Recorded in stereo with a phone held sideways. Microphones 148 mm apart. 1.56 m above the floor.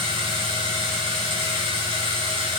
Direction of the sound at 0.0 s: 40° right (ahead or behind).